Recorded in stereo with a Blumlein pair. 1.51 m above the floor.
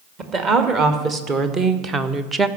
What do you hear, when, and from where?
0.2 s a woman speaking: 30° right, 2 m; by 2.5 s 10° right, 0.7 m